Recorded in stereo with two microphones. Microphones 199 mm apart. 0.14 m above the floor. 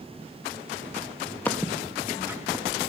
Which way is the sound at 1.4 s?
10° left (ahead or behind).